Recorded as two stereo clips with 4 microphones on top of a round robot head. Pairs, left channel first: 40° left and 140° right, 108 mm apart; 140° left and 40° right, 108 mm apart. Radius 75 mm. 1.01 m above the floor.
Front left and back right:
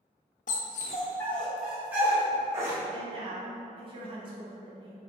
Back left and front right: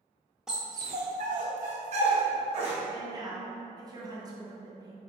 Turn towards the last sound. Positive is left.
turn(degrees=-95)